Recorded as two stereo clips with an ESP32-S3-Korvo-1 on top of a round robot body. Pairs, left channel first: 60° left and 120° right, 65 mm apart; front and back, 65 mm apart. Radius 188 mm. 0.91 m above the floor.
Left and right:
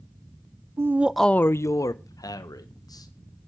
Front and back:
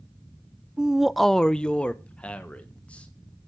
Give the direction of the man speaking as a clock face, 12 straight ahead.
4 o'clock.